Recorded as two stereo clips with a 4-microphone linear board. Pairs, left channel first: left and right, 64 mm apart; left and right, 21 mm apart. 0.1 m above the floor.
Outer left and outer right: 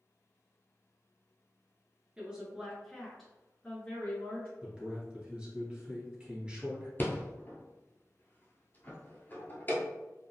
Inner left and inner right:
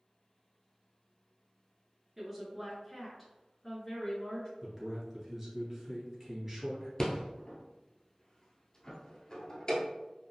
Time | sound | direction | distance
2.2 | a woman speaking | 15° right (ahead or behind) | 1.3 m
4.6 | a man speaking | 15° right (ahead or behind) | 1.5 m
7.0 | a rattle | 35° left (ahead or behind) | 0.8 m